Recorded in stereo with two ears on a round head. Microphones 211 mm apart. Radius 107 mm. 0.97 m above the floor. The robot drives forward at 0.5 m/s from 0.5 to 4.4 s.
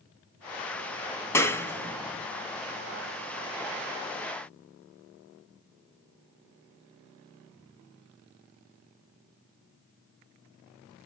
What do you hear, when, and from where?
1.3 s a clap: 10° left (ahead or behind), 0.9 m